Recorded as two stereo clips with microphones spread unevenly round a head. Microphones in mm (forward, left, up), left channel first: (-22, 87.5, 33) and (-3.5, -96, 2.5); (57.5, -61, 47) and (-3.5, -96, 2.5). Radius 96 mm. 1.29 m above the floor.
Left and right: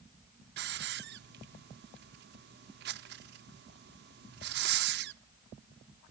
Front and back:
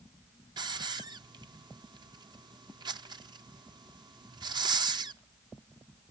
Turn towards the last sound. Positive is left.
turn(degrees=-110)